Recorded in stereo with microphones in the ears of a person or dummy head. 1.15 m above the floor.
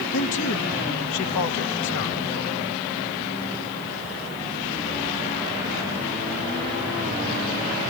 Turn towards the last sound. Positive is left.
turn(degrees=65)  # may be behind; listen again after turning